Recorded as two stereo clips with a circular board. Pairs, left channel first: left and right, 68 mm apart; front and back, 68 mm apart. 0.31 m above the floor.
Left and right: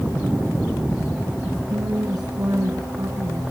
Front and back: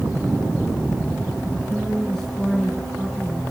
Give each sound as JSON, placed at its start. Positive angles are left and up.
{"t": 1.7, "sound": "a woman speaking", "azimuth_deg": -85, "distance_m": 4.5}